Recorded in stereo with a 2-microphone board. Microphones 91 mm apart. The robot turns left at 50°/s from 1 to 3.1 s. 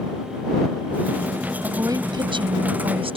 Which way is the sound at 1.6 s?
30° right.